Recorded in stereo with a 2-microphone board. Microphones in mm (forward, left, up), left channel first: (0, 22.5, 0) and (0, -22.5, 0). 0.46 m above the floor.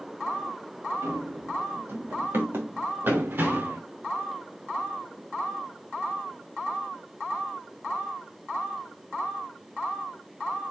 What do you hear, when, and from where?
1.0 s running footsteps: 75° right (ahead or behind), 3.5 m; by 3.8 s 45° right (ahead or behind), 2.5 m